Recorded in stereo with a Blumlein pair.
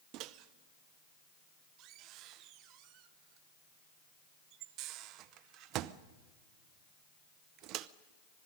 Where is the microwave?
40° right, 0.7 m.